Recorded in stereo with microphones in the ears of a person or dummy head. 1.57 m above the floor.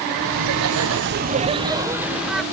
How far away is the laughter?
About 1.3 m.